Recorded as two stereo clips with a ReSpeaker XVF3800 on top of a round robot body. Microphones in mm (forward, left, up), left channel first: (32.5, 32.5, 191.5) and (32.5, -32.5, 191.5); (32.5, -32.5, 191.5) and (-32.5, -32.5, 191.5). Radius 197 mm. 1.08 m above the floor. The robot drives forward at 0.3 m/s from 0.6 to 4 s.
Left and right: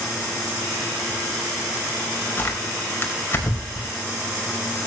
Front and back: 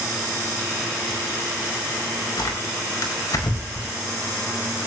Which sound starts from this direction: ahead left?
Tearing paper, at 2.4 s.